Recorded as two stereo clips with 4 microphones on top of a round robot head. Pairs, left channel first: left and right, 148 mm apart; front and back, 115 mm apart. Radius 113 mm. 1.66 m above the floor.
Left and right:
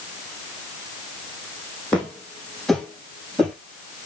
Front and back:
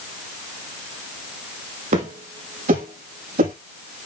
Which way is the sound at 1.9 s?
175° left.